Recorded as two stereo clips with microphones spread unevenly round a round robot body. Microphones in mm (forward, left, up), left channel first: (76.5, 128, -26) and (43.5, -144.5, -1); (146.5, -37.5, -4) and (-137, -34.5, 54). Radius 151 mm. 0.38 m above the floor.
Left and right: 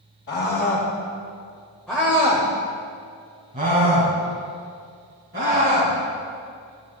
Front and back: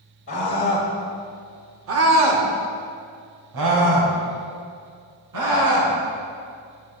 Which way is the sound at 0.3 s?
45° left.